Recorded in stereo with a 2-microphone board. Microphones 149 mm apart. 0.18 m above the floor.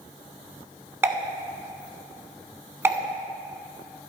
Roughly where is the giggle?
No giggle in this recording.